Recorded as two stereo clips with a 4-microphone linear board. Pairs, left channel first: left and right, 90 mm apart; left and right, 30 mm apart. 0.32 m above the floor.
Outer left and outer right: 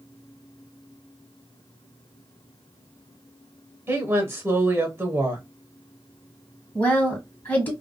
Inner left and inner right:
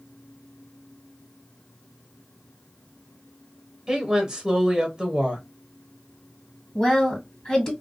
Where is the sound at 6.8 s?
20° left (ahead or behind), 1.5 m.